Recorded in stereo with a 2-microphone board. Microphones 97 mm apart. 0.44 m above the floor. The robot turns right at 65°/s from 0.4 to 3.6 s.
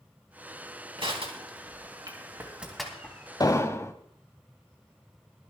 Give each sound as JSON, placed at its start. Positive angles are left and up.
{"t": 1.0, "sound": "crushing", "side_deg": -60, "distance_m": 3.0}
{"t": 3.4, "sound": "an explosion", "side_deg": 40, "distance_m": 0.8}